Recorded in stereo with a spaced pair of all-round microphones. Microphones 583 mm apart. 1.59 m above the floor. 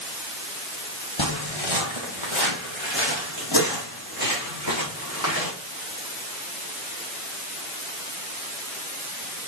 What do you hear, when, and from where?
1.2 s footsteps: 50° left (ahead or behind), 2.5 m; by 5.5 s 30° left (ahead or behind), 6.5 m